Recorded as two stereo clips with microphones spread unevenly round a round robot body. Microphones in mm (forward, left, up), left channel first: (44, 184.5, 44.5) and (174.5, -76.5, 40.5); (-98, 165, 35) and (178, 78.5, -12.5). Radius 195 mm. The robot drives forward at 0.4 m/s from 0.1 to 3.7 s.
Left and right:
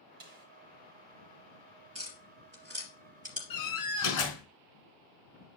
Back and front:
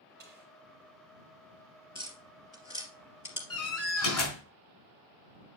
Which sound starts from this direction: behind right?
Tapping, at 1.9 s.